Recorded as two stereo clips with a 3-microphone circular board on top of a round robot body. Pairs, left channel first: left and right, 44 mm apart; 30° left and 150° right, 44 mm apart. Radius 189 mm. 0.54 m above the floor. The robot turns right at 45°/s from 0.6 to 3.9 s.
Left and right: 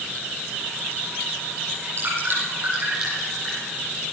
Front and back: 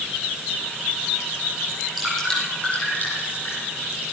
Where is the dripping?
70° right, 9.5 m; by 3.6 s 15° left, 9.5 m.